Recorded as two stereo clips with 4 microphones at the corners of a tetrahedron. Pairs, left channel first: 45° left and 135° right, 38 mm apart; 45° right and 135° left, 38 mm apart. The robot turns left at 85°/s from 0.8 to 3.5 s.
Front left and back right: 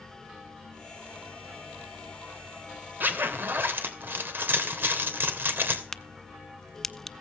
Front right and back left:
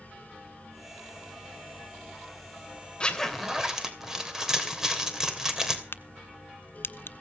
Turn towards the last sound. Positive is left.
turn(degrees=-35)